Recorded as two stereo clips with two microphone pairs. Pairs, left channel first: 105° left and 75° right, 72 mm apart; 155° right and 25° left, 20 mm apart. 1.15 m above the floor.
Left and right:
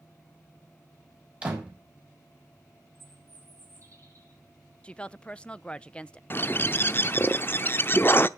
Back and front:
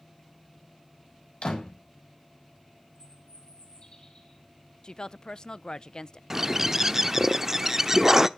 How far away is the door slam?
About 6 m.